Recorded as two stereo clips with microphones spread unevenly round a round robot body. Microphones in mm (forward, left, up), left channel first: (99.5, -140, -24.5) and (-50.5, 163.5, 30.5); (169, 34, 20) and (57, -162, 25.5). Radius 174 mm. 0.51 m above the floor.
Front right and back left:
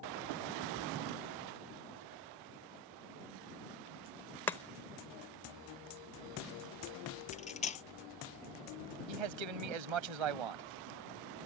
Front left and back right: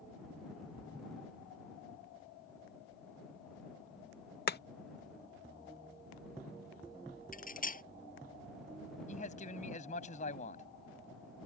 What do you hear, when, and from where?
4.5 s chopping: 15° left
7.3 s cutlery clinking: 10° left
9.1 s a man speaking: 130° left